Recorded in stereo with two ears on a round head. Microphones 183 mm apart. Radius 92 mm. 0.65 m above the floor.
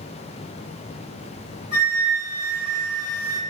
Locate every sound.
1.7 s a flute: 35° right (ahead or behind), 0.9 m